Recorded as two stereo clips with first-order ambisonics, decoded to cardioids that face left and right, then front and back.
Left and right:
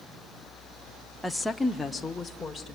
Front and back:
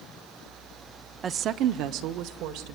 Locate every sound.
1.2 s a woman speaking: straight behind, 0.6 m; by 2.8 s 175° left, 2.0 m